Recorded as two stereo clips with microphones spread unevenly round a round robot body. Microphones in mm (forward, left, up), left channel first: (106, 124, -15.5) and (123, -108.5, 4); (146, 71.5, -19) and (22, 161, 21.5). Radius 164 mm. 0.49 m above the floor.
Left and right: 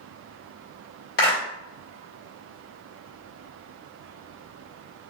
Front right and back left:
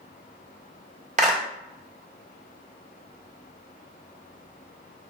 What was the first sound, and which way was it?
A clap, 105° left.